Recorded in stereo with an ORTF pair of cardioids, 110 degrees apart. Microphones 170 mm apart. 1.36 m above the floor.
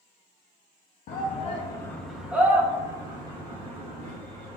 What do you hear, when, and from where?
1.1 s a shout: 55° left, 0.6 m; by 4.6 s 35° right, 2 m